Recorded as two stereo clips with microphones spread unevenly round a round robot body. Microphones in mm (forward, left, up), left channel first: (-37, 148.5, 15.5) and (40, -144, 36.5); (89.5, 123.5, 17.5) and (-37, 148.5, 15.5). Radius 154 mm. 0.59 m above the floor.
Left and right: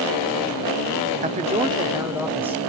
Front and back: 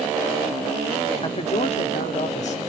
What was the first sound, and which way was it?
A man speaking, 20° right.